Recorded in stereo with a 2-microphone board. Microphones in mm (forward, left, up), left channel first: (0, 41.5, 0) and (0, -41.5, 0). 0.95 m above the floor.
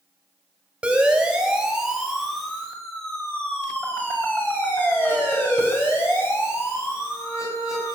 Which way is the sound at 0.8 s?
10° right (ahead or behind).